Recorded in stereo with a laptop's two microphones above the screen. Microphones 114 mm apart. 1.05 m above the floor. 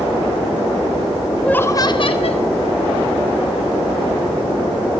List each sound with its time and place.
1.4 s laughter: 5° left (ahead or behind), 1.0 m; by 2.5 s 70° left (ahead or behind), 1.4 m